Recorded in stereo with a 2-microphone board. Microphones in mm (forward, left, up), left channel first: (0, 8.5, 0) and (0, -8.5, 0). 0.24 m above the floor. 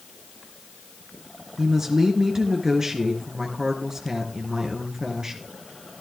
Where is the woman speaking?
30° right (ahead or behind), 3 m.